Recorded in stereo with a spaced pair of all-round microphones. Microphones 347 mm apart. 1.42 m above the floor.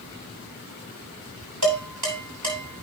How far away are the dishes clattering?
About 7.5 m.